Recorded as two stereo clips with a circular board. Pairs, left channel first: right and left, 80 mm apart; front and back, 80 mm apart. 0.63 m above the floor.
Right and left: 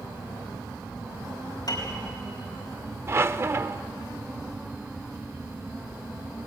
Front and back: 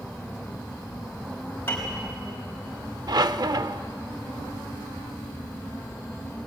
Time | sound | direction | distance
1.7 | a piano | 60° right | 4.5 m
3.1 | a squeak | 145° left | 0.5 m